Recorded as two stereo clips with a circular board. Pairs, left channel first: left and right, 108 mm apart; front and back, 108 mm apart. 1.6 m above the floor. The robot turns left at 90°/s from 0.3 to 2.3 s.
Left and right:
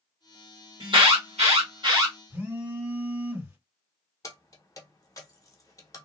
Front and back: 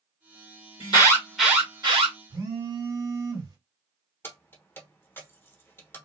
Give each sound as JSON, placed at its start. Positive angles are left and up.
{"t": 0.8, "sound": "an alarm", "azimuth_deg": -35, "distance_m": 1.5}
{"t": 2.3, "sound": "a phone buzzing", "azimuth_deg": -150, "distance_m": 2.0}
{"t": 4.2, "sound": "keys jangling", "azimuth_deg": 55, "distance_m": 0.8}